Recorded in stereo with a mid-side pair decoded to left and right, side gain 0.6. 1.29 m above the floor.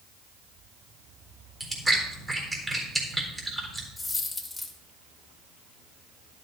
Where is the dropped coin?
15° left, 2.5 m.